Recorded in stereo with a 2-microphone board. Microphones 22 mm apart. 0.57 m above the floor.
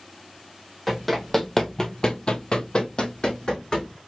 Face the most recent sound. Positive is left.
turn(degrees=35)  # may be behind; listen again after turning